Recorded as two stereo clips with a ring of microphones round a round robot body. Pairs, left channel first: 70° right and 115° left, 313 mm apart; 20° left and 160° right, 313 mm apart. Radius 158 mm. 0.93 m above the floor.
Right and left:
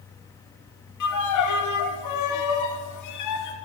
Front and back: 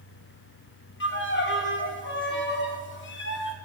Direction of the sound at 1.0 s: 35° right.